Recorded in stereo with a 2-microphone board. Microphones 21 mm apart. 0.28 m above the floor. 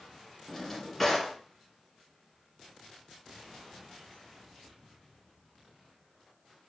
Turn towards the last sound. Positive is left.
turn(degrees=10)  # may be behind; listen again after turning